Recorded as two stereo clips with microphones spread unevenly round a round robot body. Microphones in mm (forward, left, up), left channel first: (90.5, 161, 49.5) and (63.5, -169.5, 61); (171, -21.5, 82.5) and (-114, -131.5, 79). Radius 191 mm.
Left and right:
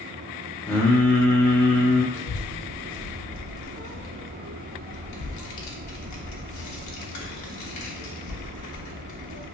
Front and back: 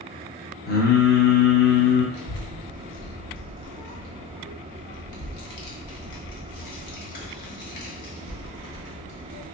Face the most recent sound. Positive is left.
turn(degrees=45)